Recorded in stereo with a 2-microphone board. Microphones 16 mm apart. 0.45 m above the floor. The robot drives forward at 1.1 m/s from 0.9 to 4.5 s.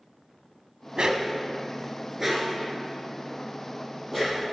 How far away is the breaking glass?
I don't hear breaking glass.